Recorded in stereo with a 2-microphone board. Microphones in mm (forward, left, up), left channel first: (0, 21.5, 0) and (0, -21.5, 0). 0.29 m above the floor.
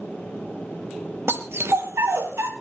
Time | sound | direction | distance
1.3 | a dog barking | 75° right (ahead or behind) | 2.5 m